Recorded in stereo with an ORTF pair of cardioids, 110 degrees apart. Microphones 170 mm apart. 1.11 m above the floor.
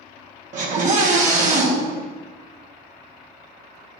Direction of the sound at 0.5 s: 50° right.